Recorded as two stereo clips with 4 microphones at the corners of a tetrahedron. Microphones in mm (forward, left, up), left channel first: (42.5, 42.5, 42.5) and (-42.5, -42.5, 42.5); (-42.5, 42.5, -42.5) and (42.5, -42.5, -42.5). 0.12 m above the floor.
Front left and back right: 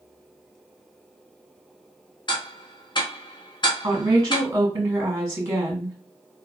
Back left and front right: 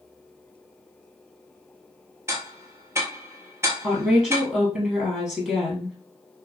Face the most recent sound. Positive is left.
turn(degrees=-120)